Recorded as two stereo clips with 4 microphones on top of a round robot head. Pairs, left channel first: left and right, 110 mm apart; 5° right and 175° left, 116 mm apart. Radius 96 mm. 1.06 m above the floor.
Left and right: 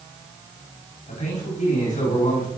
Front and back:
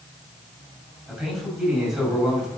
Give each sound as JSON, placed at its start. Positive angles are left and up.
{"t": 1.1, "sound": "a man speaking", "azimuth_deg": 90, "distance_m": 5.0}